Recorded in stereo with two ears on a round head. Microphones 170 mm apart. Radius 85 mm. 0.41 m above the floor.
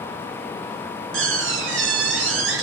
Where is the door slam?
75° right (ahead or behind), 4 m.